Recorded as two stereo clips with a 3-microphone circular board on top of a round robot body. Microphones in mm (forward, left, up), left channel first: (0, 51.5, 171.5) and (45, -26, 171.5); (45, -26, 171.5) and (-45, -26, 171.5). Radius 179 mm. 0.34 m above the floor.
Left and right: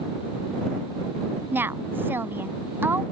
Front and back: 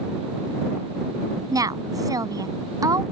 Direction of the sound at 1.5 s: 130° right.